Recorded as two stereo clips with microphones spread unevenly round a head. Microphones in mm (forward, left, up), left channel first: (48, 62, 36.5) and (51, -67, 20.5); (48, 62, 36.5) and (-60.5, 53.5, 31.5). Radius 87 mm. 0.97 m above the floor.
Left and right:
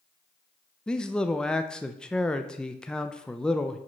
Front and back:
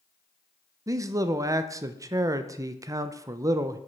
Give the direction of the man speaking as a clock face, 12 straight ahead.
6 o'clock.